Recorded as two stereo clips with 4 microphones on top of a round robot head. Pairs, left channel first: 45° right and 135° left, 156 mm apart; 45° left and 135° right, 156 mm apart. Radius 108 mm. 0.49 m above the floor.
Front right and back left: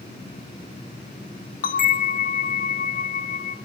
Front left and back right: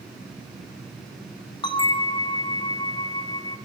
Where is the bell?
15° right, 0.6 m.